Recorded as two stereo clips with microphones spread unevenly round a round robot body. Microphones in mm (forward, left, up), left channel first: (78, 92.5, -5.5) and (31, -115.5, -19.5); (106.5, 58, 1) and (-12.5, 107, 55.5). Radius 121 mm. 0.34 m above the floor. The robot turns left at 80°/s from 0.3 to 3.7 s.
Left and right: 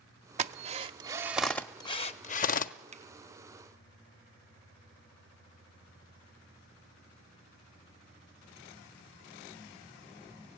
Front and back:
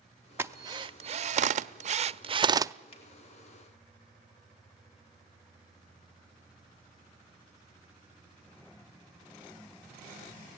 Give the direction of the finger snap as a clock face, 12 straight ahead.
2 o'clock.